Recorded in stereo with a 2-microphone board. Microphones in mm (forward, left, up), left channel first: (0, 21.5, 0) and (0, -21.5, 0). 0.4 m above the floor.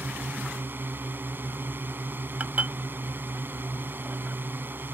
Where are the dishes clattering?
40° right (ahead or behind).